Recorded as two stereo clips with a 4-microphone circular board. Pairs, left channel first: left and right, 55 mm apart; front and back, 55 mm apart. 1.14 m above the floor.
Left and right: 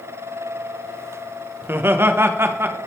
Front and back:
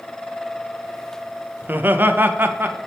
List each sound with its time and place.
1.6 s laughter: 130° right, 0.7 m